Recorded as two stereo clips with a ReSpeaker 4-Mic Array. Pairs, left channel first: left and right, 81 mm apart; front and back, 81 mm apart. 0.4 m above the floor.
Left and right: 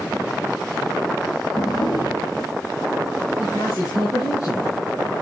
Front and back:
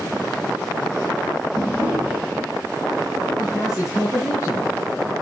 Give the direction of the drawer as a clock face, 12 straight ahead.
8 o'clock.